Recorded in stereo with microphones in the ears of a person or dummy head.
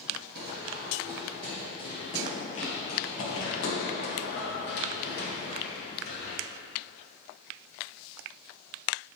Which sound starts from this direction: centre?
Running footsteps, at 0.3 s.